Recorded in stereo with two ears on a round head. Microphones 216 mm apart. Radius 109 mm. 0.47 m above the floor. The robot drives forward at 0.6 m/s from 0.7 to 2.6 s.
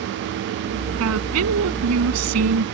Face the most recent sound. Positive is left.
turn(degrees=-75)  # may be behind; listen again after turning